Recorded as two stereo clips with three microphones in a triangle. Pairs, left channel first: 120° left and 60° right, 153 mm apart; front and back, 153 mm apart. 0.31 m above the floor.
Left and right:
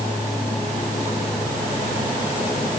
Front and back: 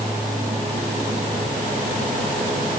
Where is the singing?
I don't hear singing.